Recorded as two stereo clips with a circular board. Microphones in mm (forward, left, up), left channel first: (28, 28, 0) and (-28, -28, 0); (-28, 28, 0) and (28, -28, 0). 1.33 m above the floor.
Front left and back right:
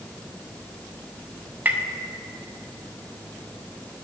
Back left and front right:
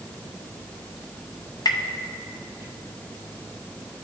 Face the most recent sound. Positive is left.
turn(degrees=160)